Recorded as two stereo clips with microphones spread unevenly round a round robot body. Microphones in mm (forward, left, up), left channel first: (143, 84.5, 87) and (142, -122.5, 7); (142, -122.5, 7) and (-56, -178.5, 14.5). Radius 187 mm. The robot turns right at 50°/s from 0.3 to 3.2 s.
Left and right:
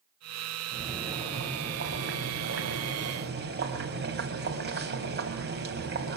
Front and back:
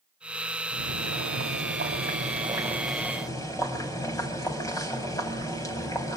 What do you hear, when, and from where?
0.7 s boiling: 175° left, 5 m; by 6.2 s 60° right, 5 m